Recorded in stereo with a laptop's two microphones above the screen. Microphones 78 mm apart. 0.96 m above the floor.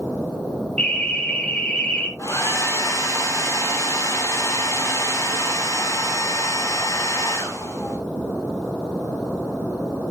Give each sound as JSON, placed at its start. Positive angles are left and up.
{"t": 0.8, "sound": "an alarm", "side_deg": 15, "distance_m": 1.5}
{"t": 2.2, "sound": "a hair dryer", "side_deg": 45, "distance_m": 2.5}